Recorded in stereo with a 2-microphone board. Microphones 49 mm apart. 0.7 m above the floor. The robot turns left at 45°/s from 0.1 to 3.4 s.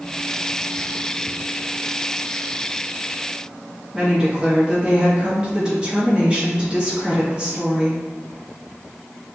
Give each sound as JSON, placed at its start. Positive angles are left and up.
{"t": 3.9, "sound": "a woman speaking", "side_deg": -20, "distance_m": 1.2}